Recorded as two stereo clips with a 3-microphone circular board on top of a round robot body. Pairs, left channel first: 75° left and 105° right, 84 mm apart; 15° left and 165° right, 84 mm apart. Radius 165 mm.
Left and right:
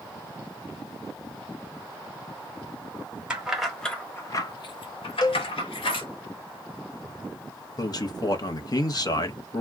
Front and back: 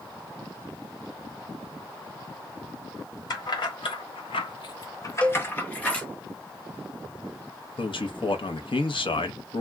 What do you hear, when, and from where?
3.3 s keys jangling: 25° right, 1.0 m; by 6.1 s 95° left, 1.3 m
5.2 s a cowbell: 90° left, 0.5 m
7.8 s a man speaking: 35° left, 0.8 m